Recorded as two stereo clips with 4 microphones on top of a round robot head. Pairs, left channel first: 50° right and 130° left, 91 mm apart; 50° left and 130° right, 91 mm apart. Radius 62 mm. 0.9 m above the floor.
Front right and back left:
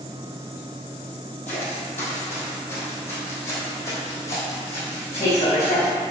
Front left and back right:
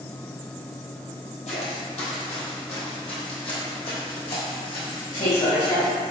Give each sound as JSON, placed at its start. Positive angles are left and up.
{"t": 1.5, "sound": "footsteps", "azimuth_deg": 25, "distance_m": 1.7}